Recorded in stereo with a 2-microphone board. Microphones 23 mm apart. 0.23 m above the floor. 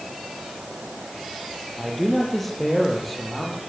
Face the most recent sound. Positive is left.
turn(degrees=10)  # may be behind; listen again after turning